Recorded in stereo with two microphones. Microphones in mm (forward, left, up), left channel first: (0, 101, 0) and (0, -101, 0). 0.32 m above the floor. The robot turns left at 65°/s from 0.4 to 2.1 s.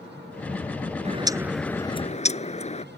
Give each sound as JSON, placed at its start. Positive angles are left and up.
{"t": 1.1, "sound": "a bird", "azimuth_deg": -145}